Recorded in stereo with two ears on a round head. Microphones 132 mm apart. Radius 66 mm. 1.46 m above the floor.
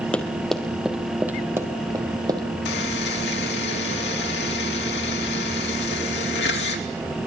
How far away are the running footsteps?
About 2.0 m.